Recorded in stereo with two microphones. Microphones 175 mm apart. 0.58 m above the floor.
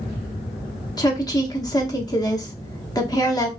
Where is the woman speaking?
20° left (ahead or behind), 0.8 m.